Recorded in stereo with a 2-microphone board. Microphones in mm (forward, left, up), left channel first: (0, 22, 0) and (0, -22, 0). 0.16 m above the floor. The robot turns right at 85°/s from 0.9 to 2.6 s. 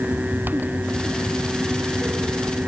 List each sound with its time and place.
Only background noise.